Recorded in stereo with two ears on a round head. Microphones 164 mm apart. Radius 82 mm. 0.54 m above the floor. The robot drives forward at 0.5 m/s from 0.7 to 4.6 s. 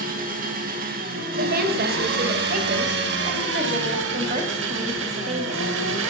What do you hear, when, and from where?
0.0 s an engine running: 50° right (ahead or behind), 3.5 m; by 6.1 s 75° right (ahead or behind), 3 m
1.4 s a woman speaking: 55° right (ahead or behind), 2.5 m; by 5.7 s 35° right (ahead or behind), 3.5 m